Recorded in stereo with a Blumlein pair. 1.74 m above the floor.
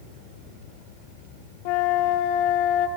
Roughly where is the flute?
Ahead left.